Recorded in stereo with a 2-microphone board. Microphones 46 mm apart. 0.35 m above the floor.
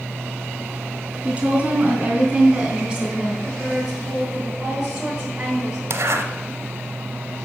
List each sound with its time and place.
1.2 s a woman speaking: 25° right (ahead or behind), 3.5 m; by 3.3 s 10° right (ahead or behind), 2.5 m
3.4 s a woman speaking: 10° right (ahead or behind), 3.5 m
5.9 s a zipper: 65° right (ahead or behind), 0.9 m